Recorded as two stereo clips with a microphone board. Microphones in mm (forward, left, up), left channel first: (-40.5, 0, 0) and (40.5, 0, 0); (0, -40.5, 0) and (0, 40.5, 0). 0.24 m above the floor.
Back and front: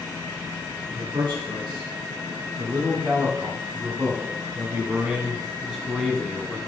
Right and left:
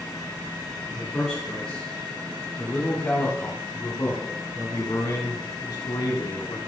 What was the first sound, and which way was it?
A man speaking, 5° right.